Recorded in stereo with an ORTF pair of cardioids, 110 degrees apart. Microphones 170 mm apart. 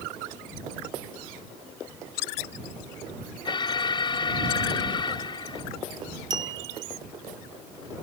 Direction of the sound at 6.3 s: 25° right.